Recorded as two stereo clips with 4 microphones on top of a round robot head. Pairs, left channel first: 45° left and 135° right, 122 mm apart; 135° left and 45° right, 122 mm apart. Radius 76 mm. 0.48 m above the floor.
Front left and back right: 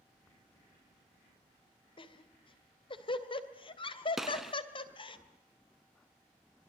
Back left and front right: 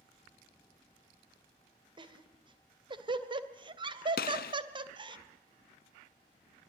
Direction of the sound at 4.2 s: 140° left.